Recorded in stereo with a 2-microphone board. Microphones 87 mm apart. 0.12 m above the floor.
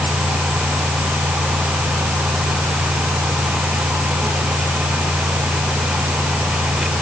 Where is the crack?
I don't hear a crack.